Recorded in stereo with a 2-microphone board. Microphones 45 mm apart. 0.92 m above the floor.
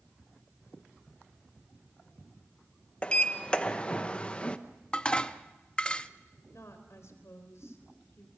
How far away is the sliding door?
About 0.9 m.